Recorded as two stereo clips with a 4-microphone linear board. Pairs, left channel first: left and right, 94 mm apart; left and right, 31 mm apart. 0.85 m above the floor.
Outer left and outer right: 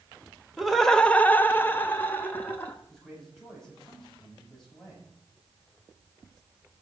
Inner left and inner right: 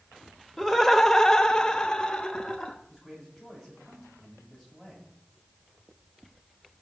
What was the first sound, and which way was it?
Laughter, 5° right (ahead or behind).